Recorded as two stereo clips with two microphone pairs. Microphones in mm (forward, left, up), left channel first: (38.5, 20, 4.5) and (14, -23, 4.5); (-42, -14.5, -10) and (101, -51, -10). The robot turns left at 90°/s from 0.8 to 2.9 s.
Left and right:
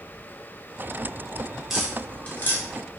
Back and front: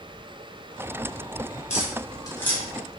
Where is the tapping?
160° left, 0.8 m; by 2.6 s 75° left, 0.8 m.